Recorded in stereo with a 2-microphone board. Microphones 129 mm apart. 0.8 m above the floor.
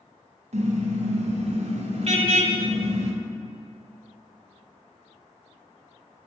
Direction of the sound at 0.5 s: 60° right (ahead or behind).